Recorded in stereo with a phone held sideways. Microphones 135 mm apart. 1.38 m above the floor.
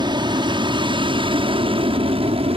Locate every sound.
0.0 s an aircraft: 35° right (ahead or behind); by 2.6 s 45° right (ahead or behind)